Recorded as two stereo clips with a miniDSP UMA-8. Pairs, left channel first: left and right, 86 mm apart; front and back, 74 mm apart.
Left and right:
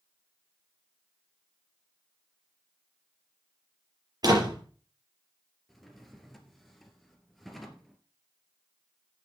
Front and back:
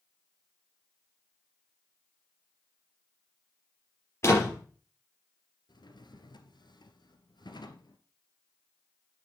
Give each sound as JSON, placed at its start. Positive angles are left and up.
{"t": 4.2, "sound": "a door slam", "azimuth_deg": -50, "distance_m": 5.0}
{"t": 5.7, "sound": "a drawer", "azimuth_deg": 0, "distance_m": 1.9}